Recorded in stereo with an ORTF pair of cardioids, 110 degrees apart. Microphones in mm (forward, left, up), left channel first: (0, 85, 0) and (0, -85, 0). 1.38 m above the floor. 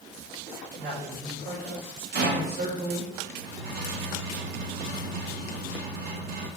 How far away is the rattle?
About 1.6 m.